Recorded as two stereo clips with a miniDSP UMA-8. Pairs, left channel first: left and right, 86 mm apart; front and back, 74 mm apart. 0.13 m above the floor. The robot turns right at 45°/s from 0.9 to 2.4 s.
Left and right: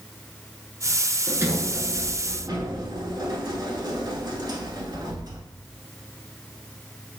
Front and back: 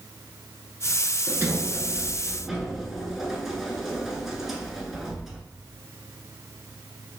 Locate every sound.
1.3 s a sliding door: 145° right, 0.6 m; by 5.4 s 95° right, 0.6 m